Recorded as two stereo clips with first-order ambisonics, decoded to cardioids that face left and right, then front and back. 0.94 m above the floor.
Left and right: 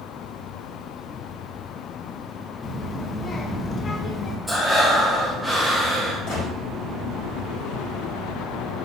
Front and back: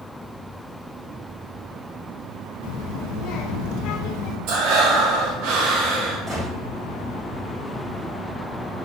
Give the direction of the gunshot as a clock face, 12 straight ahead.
8 o'clock.